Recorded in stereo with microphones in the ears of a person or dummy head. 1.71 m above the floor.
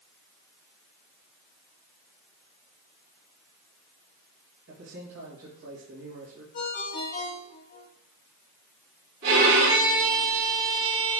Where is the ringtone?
45° left (ahead or behind), 2 m.